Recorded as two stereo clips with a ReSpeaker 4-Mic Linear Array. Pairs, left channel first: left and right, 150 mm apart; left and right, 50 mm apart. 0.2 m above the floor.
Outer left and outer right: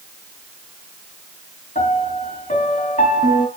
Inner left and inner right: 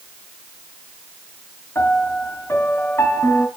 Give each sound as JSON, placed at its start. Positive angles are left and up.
{"t": 1.8, "sound": "a piano", "side_deg": 55, "distance_m": 3.0}